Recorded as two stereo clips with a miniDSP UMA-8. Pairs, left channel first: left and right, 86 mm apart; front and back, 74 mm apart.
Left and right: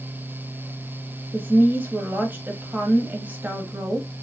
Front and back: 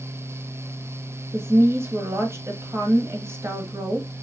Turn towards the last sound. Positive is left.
turn(degrees=-150)